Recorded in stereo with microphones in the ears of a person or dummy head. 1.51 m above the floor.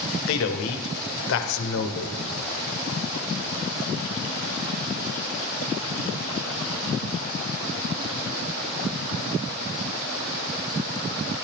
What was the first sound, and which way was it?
A man speaking, 65° left (ahead or behind).